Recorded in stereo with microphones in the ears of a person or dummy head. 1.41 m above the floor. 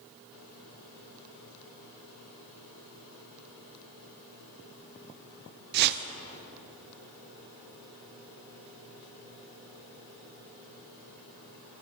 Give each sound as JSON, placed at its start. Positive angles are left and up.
{"t": 5.7, "sound": "a whoosh", "side_deg": -55, "distance_m": 0.7}